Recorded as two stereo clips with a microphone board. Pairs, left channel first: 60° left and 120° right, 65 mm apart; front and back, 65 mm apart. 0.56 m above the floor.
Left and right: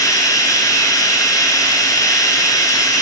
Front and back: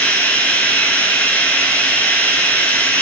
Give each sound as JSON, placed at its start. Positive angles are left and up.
{"t": 0.0, "sound": "running water", "azimuth_deg": 65, "distance_m": 1.1}